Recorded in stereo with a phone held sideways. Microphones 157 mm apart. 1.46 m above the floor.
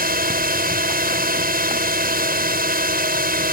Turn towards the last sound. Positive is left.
turn(degrees=-75)  # may be behind; listen again after turning